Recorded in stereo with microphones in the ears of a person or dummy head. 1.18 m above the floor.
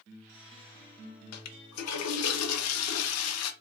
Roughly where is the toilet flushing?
Left.